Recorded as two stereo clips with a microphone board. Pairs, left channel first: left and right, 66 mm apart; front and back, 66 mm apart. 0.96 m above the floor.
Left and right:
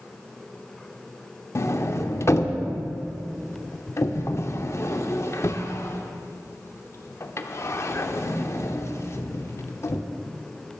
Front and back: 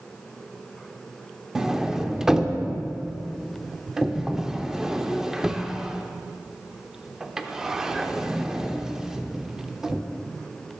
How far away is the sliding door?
About 0.7 m.